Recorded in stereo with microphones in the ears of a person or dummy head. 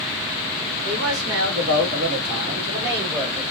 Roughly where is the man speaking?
Right.